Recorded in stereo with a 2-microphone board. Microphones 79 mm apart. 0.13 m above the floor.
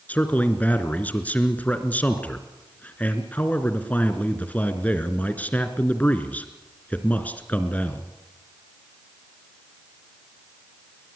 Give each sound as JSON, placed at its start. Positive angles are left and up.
{"t": 0.1, "sound": "a man speaking", "side_deg": 20, "distance_m": 2.0}